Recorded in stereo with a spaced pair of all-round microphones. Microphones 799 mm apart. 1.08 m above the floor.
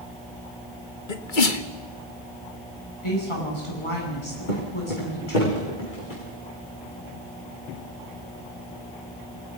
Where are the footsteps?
70° left (ahead or behind), 5 m; by 6.2 s 80° left, 6.5 m.